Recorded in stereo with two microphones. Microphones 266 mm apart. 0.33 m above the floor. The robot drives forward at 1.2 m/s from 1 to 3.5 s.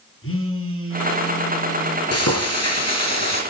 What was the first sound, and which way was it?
A phone buzzing, 55° left (ahead or behind).